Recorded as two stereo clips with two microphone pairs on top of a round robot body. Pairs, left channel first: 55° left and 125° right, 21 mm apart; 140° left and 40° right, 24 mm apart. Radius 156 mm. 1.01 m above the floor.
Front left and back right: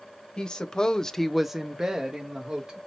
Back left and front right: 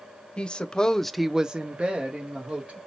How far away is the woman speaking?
About 0.8 m.